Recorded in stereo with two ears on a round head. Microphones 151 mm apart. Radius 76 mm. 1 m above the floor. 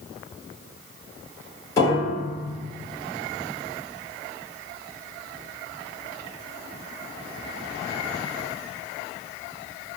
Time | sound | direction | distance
1.8 | a piano | 20° left (ahead or behind) | 1.9 m